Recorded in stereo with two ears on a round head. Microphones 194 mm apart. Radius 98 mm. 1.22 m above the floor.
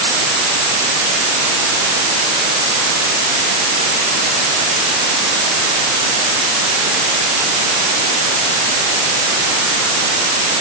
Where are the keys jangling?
No keys jangling in this recording.